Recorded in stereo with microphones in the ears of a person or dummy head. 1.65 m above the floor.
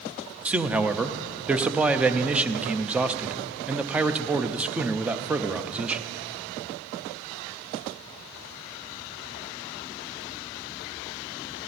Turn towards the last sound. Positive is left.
turn(degrees=-10)  # may be behind; listen again after turning